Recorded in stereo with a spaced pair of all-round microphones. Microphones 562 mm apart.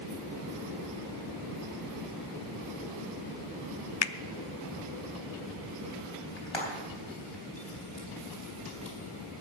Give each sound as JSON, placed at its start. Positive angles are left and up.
{"t": 4.0, "sound": "a finger snap", "side_deg": 50, "distance_m": 0.6}
{"t": 6.4, "sound": "frying", "side_deg": 50, "distance_m": 4.0}